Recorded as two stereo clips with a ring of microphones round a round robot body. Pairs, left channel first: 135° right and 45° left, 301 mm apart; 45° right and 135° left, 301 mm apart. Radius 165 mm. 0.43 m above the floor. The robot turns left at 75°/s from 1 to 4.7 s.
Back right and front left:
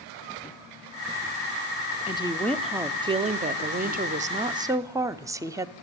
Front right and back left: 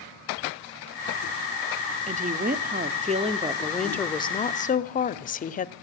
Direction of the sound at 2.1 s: 175° left.